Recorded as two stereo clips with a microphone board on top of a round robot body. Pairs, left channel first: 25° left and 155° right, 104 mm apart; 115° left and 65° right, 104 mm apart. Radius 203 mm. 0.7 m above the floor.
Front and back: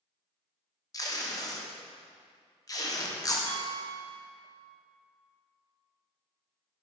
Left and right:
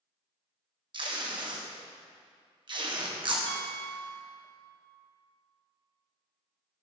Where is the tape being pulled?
30° right, 1.6 m.